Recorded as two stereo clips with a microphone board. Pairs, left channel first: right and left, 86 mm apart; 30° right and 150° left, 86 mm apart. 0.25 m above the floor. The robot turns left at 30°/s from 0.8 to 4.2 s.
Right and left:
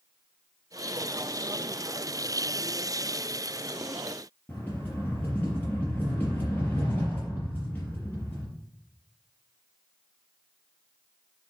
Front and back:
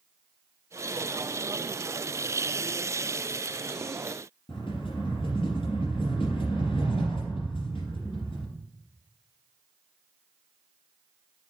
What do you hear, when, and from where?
4.5 s a rattle: 20° right, 3.5 m